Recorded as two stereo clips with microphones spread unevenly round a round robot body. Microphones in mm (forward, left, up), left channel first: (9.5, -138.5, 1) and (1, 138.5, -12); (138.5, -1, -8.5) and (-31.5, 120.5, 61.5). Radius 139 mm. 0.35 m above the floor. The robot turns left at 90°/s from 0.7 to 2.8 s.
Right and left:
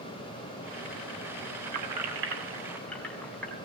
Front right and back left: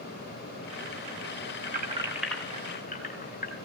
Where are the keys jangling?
100° left, 2 m; by 3.6 s straight ahead, 2 m.